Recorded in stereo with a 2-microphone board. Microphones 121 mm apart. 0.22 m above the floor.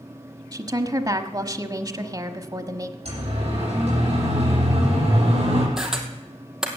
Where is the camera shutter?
5° right (ahead or behind), 2.0 m.